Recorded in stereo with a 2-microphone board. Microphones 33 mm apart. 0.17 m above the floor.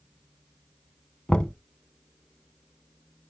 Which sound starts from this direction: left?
Knocking, at 1.3 s.